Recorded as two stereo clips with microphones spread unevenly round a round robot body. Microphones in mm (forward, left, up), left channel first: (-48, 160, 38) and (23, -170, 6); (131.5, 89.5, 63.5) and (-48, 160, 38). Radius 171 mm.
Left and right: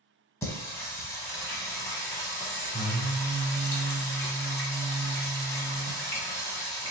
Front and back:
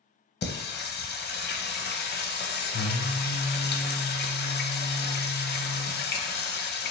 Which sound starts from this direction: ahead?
Singing, at 0.4 s.